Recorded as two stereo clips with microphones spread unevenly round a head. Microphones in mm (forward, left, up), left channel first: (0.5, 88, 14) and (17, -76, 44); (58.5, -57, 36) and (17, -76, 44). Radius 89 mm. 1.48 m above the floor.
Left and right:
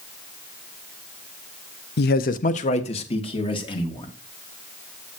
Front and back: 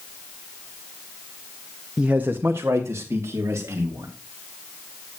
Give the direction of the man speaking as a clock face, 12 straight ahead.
8 o'clock.